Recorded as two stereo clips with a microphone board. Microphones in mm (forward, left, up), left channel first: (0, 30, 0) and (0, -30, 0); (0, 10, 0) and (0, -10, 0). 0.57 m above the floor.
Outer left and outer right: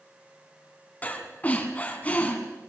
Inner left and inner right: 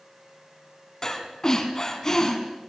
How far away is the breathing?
About 1.9 m.